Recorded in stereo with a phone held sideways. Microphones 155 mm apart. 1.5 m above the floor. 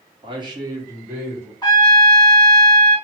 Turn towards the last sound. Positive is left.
turn(degrees=30)  # may be behind; listen again after turning